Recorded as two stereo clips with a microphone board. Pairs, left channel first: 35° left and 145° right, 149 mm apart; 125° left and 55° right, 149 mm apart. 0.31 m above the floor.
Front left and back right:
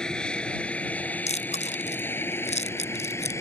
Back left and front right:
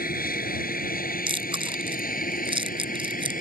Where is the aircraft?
120° left; by 3.4 s 105° left.